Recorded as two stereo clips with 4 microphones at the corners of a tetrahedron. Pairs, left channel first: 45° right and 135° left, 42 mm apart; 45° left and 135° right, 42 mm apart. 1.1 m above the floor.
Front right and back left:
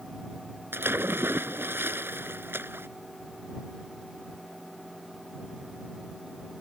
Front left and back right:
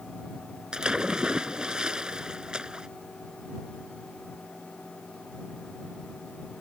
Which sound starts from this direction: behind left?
A splash, at 0.7 s.